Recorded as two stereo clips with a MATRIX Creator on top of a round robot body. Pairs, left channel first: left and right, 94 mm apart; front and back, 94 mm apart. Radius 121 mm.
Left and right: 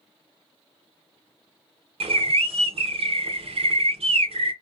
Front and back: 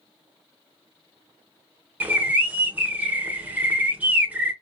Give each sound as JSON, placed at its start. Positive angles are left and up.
{"t": 2.0, "sound": "a bird", "azimuth_deg": -105, "distance_m": 0.7}